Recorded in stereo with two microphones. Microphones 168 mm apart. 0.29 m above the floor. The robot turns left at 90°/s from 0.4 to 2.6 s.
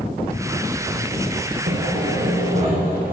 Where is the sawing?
60° right, 8.5 m; by 3.1 s 145° right, 8.5 m.